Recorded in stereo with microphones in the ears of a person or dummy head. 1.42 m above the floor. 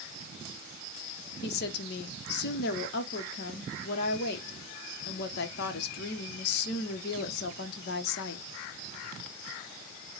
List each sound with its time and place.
1.4 s a woman speaking: 65° left (ahead or behind), 0.9 m